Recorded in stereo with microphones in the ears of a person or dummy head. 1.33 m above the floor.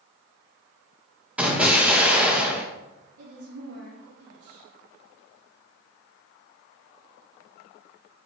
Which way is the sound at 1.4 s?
5° right (ahead or behind).